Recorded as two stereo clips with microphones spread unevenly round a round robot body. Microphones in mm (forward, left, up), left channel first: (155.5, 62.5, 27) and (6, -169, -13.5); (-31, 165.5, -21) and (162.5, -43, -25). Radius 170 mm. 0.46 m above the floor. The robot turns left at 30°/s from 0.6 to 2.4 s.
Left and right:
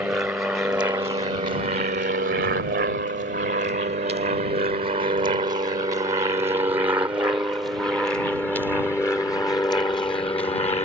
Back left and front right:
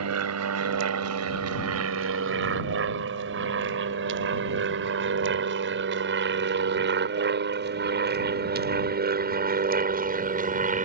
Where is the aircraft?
40° right; by 10.8 s 5° right.